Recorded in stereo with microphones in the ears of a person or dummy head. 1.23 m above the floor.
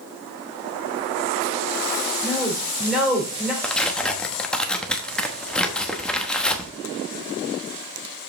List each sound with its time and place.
2.2 s a woman speaking: 5° right (ahead or behind), 4 m
3.6 s tearing paper: centre (ahead or behind), 1.0 m